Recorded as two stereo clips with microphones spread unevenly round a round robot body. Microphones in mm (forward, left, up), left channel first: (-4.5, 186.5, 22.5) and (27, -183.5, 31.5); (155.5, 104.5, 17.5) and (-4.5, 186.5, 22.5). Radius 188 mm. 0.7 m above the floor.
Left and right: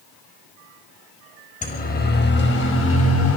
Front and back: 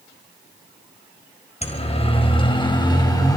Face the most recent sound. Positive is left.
turn(degrees=40)